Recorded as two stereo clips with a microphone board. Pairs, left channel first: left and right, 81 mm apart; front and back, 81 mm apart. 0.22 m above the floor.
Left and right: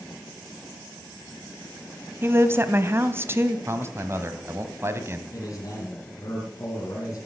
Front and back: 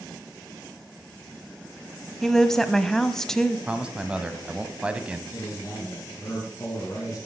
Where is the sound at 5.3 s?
50° left, 3 m.